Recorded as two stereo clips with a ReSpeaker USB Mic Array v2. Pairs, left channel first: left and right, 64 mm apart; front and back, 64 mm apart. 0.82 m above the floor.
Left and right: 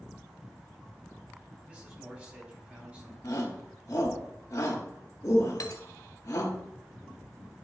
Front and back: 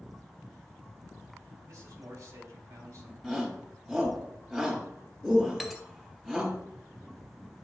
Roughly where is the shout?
Left.